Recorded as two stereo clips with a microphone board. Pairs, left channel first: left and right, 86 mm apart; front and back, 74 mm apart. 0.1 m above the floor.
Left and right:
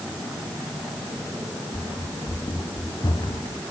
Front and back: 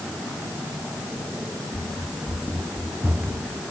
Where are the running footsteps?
115° left.